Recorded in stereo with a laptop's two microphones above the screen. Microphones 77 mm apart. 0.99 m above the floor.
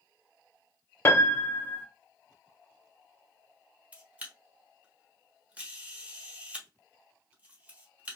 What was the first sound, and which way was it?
A piano, 30° left (ahead or behind).